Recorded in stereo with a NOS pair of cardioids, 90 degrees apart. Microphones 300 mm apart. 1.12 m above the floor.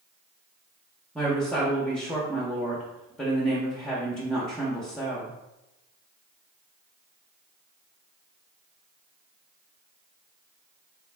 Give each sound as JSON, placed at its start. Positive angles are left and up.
{"t": 1.1, "sound": "a woman speaking", "azimuth_deg": 0, "distance_m": 0.7}